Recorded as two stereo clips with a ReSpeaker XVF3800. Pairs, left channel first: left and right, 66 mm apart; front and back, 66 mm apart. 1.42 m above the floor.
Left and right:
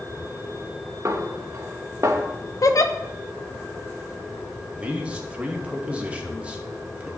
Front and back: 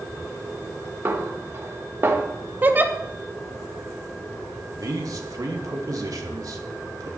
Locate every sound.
1.1 s a snare drum: 130° right, 2 m
2.6 s a giggle: 120° left, 1.2 m
4.8 s a man speaking: 160° right, 2.5 m